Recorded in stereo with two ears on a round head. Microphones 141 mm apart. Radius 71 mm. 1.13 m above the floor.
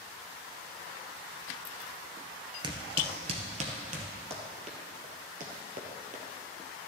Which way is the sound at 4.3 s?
40° right (ahead or behind).